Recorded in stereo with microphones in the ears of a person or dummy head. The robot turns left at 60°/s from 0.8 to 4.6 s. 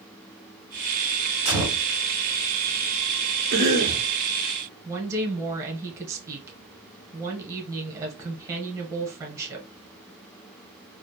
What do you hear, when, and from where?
1.4 s a gunshot: 30° right (ahead or behind), 1.2 m; by 1.9 s 20° right (ahead or behind), 1.2 m
3.5 s a cough: 105° right, 0.8 m; by 4.1 s 140° right, 0.8 m
4.8 s a woman speaking: 15° right (ahead or behind), 0.9 m